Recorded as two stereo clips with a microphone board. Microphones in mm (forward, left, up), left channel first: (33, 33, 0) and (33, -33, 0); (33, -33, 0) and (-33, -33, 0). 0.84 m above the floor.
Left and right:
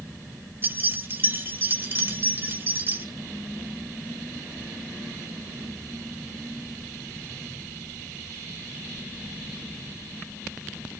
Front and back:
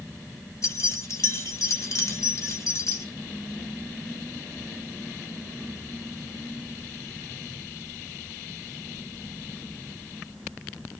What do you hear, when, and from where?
0.6 s keys jangling: 40° right, 1.7 m